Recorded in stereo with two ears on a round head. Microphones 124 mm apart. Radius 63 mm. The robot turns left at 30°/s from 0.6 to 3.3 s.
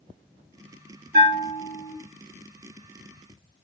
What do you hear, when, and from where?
1.1 s a bell: 55° right (ahead or behind), 3 m; by 1.9 s 80° right, 3 m